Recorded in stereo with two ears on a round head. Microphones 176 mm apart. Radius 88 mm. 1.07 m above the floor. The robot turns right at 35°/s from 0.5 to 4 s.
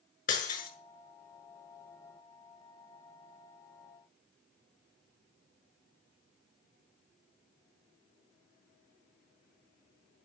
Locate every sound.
0.3 s breaking glass: 40° left (ahead or behind), 6.5 m; by 0.7 s 50° left (ahead or behind), 6.5 m